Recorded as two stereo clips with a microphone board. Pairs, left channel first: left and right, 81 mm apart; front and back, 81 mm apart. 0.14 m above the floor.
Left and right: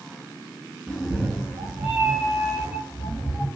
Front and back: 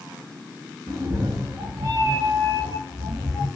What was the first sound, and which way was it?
A cat meowing, straight behind.